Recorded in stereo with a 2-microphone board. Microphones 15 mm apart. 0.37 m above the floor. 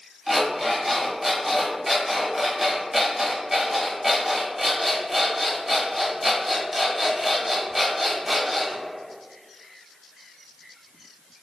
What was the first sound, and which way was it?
An alarm clock, 10° right (ahead or behind).